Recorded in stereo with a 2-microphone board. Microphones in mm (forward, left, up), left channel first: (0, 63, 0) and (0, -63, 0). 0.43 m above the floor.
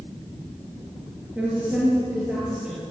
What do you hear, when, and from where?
1.4 s a woman speaking: 10° right (ahead or behind), 5.5 m; by 2.8 s 5° right (ahead or behind), 6.5 m